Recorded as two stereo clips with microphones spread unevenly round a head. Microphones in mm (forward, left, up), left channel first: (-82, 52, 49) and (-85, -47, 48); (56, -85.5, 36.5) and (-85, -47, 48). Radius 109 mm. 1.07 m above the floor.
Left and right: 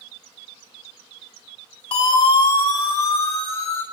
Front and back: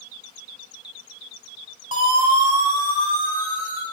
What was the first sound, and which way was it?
A siren, 100° left.